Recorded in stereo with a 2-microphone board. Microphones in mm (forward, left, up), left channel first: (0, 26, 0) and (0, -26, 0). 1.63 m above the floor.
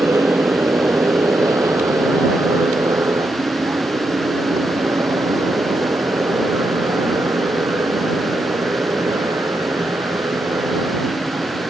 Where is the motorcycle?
60° right (ahead or behind); by 11.7 s 85° right.